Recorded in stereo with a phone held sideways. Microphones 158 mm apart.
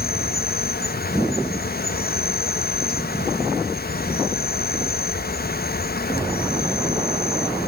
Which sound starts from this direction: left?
An insect, at 0.0 s.